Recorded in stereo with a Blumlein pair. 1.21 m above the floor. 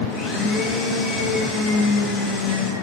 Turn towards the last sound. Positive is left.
turn(degrees=30)